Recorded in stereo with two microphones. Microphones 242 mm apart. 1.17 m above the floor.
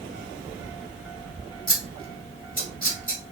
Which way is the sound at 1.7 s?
35° left (ahead or behind).